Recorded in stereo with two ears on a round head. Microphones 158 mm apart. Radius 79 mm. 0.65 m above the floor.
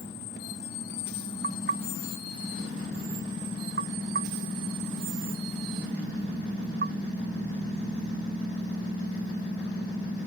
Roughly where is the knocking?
Right.